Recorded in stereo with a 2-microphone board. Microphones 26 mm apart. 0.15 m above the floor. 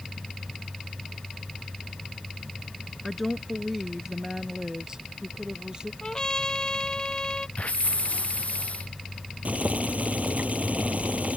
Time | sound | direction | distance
3.0 | a woman speaking | centre (ahead or behind) | ?
6.0 | a trumpet | 30° left (ahead or behind) | ?
7.6 | a hiss | 60° left (ahead or behind) | ?
9.4 | boiling | 75° right (ahead or behind) | ?